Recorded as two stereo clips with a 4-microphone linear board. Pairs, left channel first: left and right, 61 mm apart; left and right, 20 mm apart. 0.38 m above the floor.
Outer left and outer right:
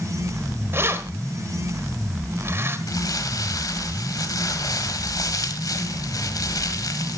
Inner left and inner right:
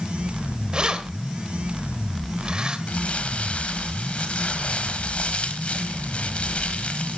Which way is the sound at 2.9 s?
70° left (ahead or behind).